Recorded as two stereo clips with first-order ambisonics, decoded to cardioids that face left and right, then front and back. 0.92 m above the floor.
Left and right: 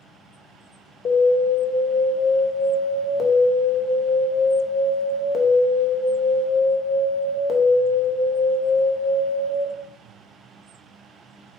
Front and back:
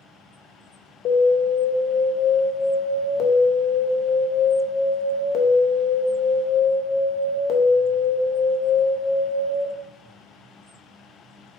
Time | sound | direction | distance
1.1 | an alarm | 35° left | 0.5 m